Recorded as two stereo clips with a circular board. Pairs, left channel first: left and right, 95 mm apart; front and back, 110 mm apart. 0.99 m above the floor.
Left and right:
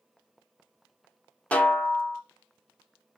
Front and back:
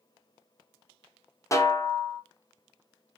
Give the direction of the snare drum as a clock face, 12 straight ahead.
11 o'clock.